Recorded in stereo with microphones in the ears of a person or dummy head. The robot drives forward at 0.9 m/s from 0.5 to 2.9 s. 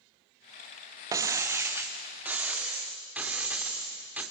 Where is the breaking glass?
20° right (ahead or behind), 1.2 m; by 4.2 s 10° right (ahead or behind), 2.5 m.